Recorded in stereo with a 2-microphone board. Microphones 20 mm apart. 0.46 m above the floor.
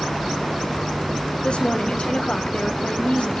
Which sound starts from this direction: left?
A woman speaking, at 1.4 s.